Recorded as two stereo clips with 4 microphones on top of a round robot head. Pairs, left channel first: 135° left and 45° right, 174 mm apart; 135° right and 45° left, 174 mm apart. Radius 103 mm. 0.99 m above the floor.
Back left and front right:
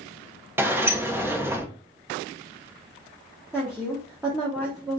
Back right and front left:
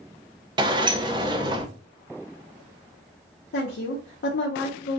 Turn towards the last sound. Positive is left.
turn(degrees=-130)